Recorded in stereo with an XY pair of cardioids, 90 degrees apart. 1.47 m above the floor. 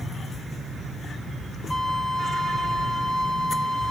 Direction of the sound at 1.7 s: 50° left.